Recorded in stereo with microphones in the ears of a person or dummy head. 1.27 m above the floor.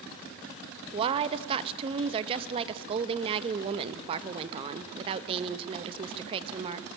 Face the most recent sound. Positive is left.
turn(degrees=-35)  # may be behind; listen again after turning